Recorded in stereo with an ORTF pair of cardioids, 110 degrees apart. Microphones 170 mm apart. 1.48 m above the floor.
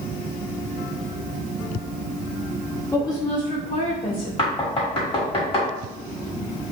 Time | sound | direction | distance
2.9 | a woman speaking | 15° left | 0.8 m
4.4 | knocking | 30° left | 1.3 m